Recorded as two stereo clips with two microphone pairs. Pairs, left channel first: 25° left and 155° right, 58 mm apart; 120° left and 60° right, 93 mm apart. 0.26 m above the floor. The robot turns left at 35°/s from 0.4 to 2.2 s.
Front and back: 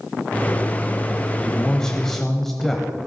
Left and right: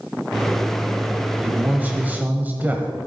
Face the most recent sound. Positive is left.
turn(degrees=-55)